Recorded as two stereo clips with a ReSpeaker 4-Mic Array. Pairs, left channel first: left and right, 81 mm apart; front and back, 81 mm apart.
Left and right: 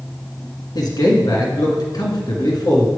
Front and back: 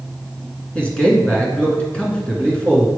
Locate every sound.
0.8 s a man speaking: 75° left, 2 m